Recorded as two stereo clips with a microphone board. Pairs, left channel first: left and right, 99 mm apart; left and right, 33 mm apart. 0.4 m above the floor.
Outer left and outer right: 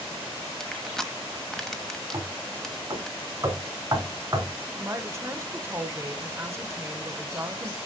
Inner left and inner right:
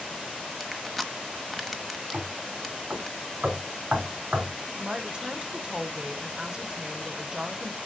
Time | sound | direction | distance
0.6 | crushing | 5° left (ahead or behind) | 1.0 m
2.1 | knocking | 30° right (ahead or behind) | 2.5 m
4.8 | a woman speaking | 30° right (ahead or behind) | 0.9 m